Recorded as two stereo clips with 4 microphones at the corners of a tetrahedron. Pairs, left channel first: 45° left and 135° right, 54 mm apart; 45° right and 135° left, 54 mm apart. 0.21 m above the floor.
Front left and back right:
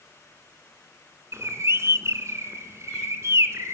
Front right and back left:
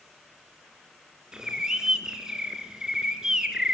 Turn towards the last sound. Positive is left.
turn(degrees=-150)